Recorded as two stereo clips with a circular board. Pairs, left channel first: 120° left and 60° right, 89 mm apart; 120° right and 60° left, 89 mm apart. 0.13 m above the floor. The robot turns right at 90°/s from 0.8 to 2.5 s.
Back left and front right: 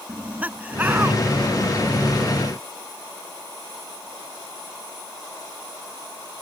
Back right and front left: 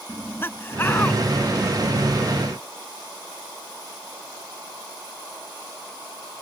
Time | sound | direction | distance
0.1 | laughter | 105° right | ?